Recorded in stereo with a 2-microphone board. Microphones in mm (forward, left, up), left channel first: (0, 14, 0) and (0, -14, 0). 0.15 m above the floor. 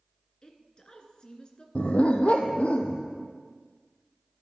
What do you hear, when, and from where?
0.4 s a woman speaking: 35° left (ahead or behind), 1.8 m
1.8 s a dog barking: 50° left (ahead or behind), 1.3 m